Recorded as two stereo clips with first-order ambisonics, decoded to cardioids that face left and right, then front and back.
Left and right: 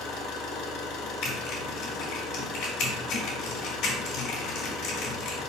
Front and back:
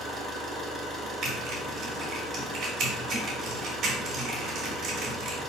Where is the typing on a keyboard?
130° left, 3 m.